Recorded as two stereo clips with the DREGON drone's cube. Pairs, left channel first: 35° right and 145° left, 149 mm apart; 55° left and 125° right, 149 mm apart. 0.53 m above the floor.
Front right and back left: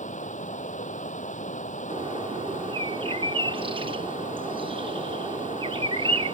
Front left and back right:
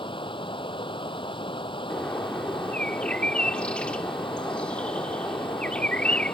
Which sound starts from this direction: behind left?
A bird, at 1.9 s.